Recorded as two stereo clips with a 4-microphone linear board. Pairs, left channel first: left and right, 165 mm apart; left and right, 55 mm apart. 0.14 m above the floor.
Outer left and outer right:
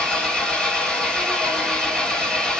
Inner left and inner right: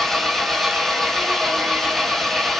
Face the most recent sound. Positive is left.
turn(degrees=5)  # may be behind; listen again after turning